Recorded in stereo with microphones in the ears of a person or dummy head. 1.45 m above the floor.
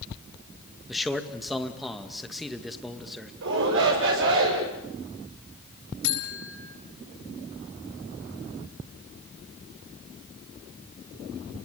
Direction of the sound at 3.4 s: 75° right (ahead or behind).